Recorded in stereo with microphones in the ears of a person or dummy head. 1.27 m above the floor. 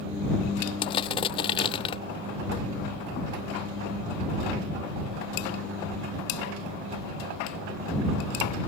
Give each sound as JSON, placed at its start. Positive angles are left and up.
{"t": 0.8, "sound": "crushing", "side_deg": 25}